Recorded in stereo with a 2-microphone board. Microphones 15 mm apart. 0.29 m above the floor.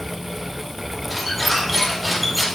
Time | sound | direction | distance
1.1 | a squeak | centre (ahead or behind) | 2.5 m